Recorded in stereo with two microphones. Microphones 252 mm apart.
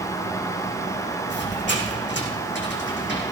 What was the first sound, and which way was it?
A squeak, 45° left (ahead or behind).